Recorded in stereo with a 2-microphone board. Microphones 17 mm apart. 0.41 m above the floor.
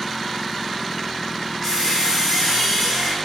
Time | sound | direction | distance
1.6 | a squeak | 25° left (ahead or behind) | 4.5 m